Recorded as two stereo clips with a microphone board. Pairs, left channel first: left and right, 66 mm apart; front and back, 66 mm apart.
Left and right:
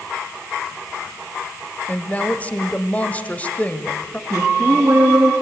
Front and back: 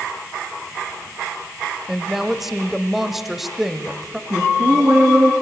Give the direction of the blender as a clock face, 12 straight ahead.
I don't hear a blender.